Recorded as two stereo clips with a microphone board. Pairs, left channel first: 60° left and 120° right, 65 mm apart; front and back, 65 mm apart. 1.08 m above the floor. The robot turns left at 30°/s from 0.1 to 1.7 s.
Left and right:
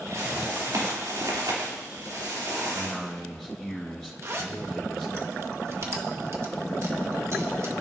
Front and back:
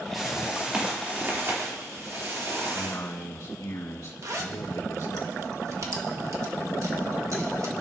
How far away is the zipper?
About 1.4 m.